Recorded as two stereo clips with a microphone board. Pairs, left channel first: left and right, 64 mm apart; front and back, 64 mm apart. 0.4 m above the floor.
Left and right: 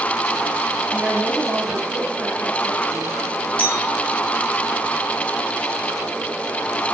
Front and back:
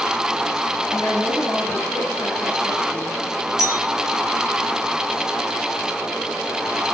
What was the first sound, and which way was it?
A woman speaking, 20° right.